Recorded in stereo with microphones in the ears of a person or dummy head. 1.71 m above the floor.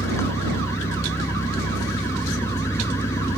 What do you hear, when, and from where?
0.0 s an engine running: 15° left (ahead or behind)